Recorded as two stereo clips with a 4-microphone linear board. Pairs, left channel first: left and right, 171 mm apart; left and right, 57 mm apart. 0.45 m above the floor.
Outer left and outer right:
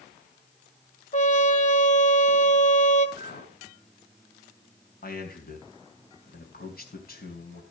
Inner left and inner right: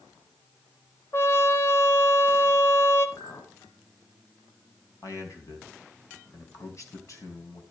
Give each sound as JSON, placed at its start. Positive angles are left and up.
{"t": 1.1, "sound": "a trumpet", "side_deg": 45, "distance_m": 1.3}
{"t": 3.2, "sound": "a clink", "side_deg": 70, "distance_m": 2.5}
{"t": 5.0, "sound": "a man speaking", "side_deg": 60, "distance_m": 3.5}